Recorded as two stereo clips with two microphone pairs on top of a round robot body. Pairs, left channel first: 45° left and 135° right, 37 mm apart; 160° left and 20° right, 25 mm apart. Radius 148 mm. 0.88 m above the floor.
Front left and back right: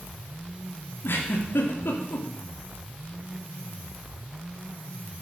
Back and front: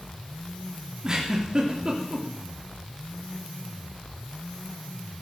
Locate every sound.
1.0 s a giggle: 40° left, 3 m